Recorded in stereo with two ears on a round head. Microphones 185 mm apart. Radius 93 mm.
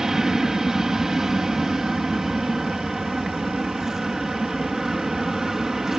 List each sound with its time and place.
0.0 s an aircraft: centre (ahead or behind)